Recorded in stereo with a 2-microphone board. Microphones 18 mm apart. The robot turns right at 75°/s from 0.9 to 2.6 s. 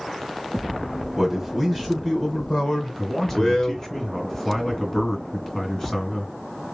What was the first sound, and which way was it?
A man speaking, 25° right.